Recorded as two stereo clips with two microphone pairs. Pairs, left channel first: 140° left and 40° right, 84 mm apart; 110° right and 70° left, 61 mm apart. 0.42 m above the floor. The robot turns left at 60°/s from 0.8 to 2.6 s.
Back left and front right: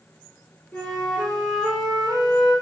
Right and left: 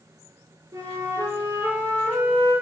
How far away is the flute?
About 5 m.